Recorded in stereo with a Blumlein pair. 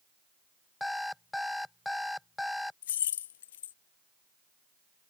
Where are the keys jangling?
60° left.